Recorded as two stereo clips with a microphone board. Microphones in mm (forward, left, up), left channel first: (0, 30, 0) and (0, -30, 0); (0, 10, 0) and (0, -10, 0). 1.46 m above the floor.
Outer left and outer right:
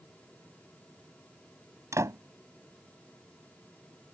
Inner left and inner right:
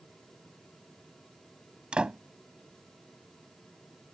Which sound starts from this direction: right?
A door slam, at 1.9 s.